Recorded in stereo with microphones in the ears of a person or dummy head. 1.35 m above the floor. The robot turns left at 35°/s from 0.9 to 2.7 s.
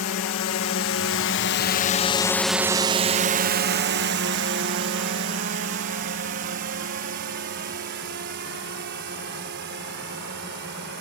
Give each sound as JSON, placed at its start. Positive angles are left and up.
{"t": 0.0, "sound": "a drone", "side_deg": 65}